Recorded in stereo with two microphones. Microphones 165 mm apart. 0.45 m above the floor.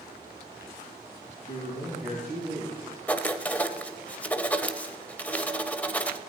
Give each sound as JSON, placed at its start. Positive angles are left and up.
{"t": 1.5, "sound": "a man speaking", "side_deg": 60, "distance_m": 4.5}
{"t": 3.1, "sound": "writing", "side_deg": 10, "distance_m": 0.6}